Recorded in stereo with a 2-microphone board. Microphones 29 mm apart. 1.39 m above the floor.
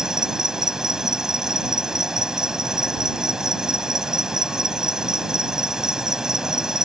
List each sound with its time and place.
0.0 s an insect: 20° right (ahead or behind)